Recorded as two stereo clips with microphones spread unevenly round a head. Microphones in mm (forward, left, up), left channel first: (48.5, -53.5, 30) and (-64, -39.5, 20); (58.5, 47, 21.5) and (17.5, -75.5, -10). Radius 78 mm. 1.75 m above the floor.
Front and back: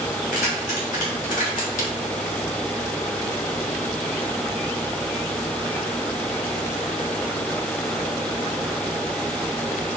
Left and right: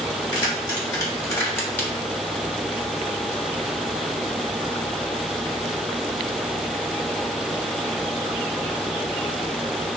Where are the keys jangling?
15° left, 4 m; by 1.9 s 5° right, 2.5 m.